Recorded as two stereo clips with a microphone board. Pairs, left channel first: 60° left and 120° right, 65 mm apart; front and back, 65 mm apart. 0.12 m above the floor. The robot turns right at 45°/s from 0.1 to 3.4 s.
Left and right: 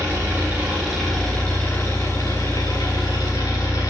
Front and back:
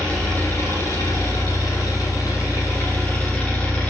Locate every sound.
0.0 s an engine running: 75° right, 6 m; by 3.9 s 75° left, 6 m